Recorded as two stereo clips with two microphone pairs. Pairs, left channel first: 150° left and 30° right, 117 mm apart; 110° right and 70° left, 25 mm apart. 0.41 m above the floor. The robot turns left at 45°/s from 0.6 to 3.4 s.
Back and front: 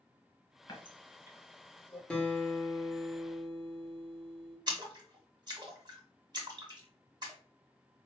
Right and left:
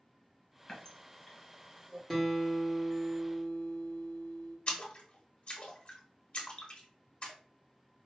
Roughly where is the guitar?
Behind.